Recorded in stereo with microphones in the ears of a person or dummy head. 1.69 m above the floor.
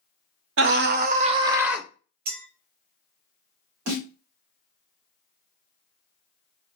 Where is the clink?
55° right (ahead or behind), 1.8 m.